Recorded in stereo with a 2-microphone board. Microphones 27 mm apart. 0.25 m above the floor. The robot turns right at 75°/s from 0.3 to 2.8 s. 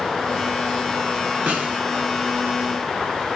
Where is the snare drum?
70° right (ahead or behind), 1.0 m.